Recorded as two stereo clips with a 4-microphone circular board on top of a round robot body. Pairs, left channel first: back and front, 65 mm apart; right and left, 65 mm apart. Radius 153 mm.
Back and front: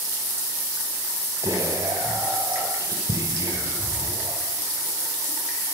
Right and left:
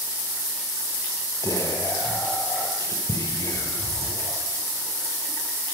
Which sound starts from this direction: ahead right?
Whispering, at 1.4 s.